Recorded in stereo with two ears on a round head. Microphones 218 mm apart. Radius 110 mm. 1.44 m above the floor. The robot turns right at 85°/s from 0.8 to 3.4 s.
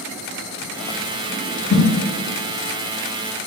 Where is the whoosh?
75° left (ahead or behind), 1.6 m; by 1.9 s 85° left, 1.6 m.